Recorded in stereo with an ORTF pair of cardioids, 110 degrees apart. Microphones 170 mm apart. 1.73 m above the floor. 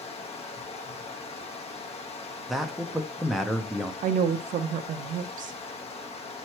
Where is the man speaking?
Straight ahead, 0.6 m.